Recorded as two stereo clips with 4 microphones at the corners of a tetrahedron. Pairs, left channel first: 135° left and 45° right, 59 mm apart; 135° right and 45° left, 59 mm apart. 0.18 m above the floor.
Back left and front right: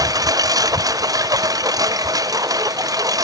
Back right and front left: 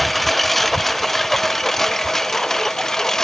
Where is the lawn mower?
45° right; by 3.2 s 50° right.